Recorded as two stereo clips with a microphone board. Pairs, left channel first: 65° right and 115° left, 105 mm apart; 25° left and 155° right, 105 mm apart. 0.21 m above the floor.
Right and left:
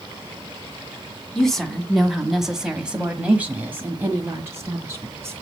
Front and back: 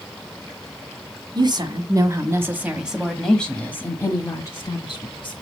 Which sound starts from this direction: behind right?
A woman speaking, at 1.4 s.